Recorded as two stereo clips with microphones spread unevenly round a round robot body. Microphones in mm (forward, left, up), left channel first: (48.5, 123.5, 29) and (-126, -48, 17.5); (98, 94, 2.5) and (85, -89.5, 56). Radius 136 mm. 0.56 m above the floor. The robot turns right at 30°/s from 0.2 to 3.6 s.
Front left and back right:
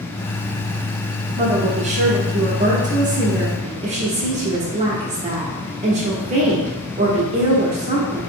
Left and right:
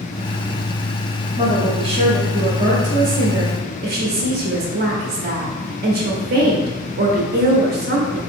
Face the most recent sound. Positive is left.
turn(degrees=-110)